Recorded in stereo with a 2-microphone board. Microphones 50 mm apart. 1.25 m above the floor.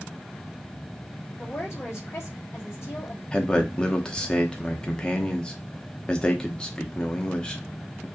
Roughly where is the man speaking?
Centre.